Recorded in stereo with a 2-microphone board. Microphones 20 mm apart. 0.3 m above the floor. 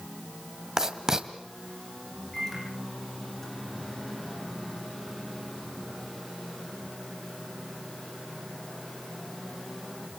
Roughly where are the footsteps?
I don't hear footsteps.